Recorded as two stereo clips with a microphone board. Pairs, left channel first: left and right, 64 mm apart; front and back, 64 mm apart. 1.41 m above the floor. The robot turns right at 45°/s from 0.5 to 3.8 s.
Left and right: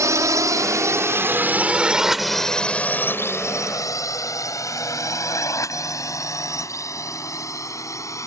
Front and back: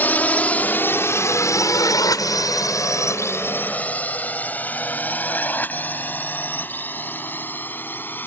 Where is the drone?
60° right; by 8.3 s 55° left.